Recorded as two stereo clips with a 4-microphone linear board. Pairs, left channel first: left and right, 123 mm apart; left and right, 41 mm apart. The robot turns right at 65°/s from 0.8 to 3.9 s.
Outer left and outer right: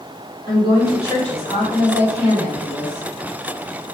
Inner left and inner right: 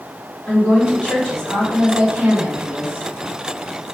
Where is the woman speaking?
140° left, 3.5 m; by 3.9 s 20° right, 3.5 m.